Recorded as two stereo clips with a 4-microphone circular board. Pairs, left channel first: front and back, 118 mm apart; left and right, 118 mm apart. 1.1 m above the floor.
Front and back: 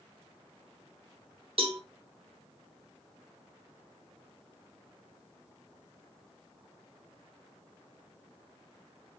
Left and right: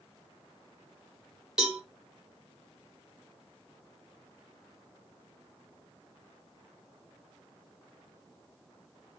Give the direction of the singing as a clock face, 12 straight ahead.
I don't hear singing.